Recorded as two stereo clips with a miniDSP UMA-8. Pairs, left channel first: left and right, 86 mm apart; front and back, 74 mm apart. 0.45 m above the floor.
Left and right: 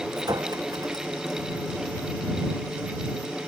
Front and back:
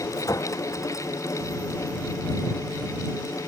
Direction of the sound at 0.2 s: 45° right.